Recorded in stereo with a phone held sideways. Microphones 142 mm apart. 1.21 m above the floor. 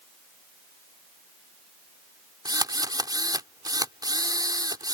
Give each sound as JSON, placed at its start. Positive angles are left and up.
{"t": 2.5, "sound": "a drill", "side_deg": -30}